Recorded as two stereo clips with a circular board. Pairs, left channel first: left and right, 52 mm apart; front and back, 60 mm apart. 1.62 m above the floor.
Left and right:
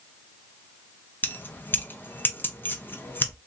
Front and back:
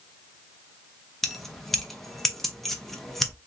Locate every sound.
1.2 s keys jangling: 85° left, 0.6 m